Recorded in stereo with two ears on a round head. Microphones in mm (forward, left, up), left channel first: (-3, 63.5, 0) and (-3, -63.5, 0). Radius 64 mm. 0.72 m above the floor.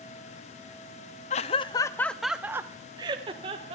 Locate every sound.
1.3 s laughter: 45° left (ahead or behind), 0.7 m; by 3.8 s 40° right (ahead or behind), 1.3 m